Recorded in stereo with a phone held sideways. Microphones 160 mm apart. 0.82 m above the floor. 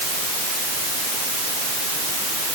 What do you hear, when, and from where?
Only background noise.